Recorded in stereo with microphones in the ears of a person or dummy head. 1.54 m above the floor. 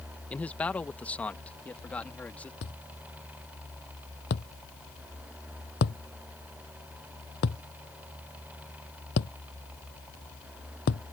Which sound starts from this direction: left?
A thud, at 2.6 s.